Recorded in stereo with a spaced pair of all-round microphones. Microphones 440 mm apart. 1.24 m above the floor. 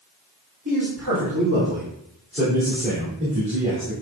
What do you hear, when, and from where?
0.7 s a man speaking: 45° right (ahead or behind), 3 m; by 3.9 s 15° right (ahead or behind), 3 m